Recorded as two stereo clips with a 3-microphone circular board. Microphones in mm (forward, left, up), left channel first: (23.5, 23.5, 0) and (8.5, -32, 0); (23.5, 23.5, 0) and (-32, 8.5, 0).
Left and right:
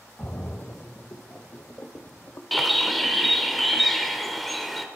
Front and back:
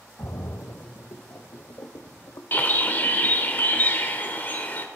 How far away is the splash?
About 0.8 m.